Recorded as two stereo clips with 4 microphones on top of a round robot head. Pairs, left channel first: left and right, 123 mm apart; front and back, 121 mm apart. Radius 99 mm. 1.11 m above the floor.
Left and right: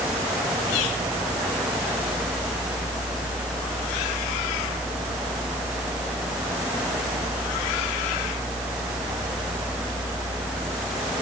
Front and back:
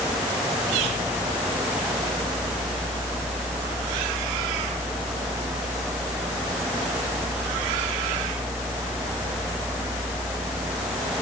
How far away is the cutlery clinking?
I don't hear cutlery clinking.